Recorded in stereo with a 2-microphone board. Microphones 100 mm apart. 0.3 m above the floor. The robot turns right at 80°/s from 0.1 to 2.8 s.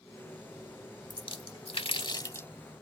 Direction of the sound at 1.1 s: 45° left (ahead or behind).